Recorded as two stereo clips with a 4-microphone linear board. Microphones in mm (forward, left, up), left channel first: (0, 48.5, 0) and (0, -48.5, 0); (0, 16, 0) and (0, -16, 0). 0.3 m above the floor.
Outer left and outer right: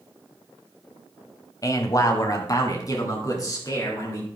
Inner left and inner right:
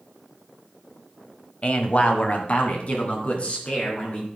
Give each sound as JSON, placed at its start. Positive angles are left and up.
{"t": 1.6, "sound": "a man speaking", "side_deg": 35, "distance_m": 1.3}